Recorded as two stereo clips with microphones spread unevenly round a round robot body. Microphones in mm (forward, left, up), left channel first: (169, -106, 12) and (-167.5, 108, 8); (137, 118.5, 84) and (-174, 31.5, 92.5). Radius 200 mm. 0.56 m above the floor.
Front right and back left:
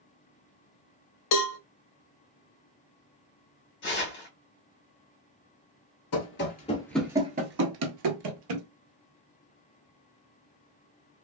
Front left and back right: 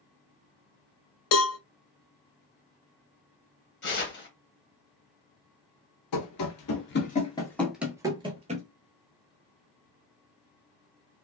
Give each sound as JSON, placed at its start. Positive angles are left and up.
{"t": 1.3, "sound": "a cowbell", "azimuth_deg": 0, "distance_m": 0.5}
{"t": 3.8, "sound": "tearing paper", "azimuth_deg": 5, "distance_m": 1.3}
{"t": 6.1, "sound": "running footsteps", "azimuth_deg": 10, "distance_m": 0.8}